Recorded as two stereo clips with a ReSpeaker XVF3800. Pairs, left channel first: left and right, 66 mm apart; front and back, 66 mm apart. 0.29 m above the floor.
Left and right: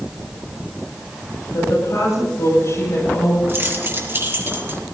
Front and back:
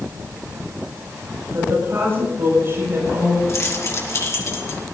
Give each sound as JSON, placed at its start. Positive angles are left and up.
{"t": 1.5, "sound": "a woman speaking", "azimuth_deg": 125, "distance_m": 8.5}
{"t": 3.5, "sound": "keys jangling", "azimuth_deg": -40, "distance_m": 2.5}